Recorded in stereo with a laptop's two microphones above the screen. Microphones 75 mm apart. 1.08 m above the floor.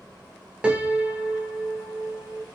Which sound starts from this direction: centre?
A piano, at 0.6 s.